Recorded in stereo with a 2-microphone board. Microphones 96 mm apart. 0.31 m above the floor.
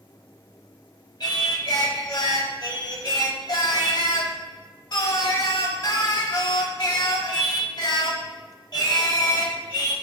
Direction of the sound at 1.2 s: 45° left (ahead or behind).